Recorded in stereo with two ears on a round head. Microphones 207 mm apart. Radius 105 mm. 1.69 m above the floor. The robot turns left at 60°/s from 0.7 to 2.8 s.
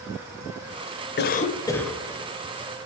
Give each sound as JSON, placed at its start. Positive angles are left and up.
{"t": 1.2, "sound": "a cough", "azimuth_deg": 45, "distance_m": 0.6}